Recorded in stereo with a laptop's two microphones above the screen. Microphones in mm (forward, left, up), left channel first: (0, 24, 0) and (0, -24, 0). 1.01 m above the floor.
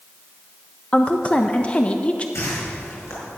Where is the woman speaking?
25° left (ahead or behind), 0.6 m.